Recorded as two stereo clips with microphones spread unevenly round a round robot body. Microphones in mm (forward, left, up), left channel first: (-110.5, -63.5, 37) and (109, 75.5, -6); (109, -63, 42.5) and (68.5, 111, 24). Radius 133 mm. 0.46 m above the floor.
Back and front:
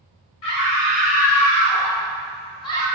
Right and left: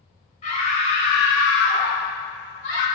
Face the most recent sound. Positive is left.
turn(degrees=-65)